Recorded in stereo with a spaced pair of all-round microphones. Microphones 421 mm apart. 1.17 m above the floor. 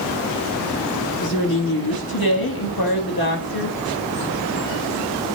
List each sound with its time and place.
1.2 s a woman speaking: 55° left (ahead or behind), 1.6 m